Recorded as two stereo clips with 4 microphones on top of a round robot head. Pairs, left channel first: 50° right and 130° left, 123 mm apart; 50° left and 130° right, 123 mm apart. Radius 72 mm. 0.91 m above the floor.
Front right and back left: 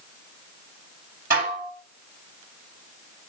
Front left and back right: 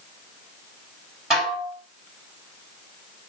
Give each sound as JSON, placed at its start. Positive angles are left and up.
{"t": 1.3, "sound": "dishes clattering", "azimuth_deg": 145, "distance_m": 6.0}